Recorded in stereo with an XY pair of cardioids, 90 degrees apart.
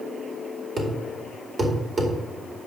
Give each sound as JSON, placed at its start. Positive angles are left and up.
{"t": 0.8, "sound": "a thud", "azimuth_deg": -40, "distance_m": 2.0}